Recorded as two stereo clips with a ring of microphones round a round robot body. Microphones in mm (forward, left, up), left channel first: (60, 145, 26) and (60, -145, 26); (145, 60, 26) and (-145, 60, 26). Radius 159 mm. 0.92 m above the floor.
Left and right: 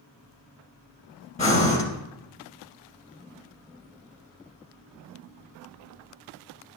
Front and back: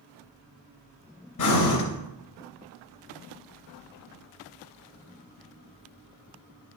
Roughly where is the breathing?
Ahead left.